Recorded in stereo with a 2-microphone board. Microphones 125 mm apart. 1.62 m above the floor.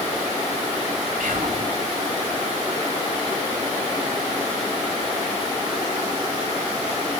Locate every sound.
1.2 s whispering: 75° right (ahead or behind), 4 m